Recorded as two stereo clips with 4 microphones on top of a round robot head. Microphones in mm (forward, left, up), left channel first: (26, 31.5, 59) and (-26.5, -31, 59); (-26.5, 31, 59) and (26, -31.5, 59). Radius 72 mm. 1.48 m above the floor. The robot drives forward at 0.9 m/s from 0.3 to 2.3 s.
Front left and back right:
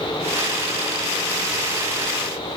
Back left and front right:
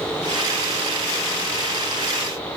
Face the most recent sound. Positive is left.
No sound to turn to.